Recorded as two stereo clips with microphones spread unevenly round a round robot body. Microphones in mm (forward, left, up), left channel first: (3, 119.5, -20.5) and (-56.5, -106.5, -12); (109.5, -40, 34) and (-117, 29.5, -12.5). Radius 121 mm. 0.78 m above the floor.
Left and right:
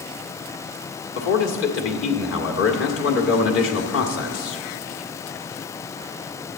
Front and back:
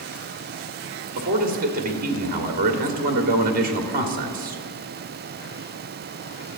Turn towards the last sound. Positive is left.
turn(degrees=110)